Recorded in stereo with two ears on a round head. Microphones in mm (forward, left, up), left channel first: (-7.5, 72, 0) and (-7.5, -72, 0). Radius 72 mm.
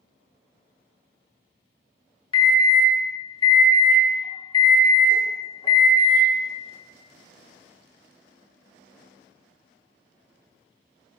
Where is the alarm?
30° left (ahead or behind), 1.1 m.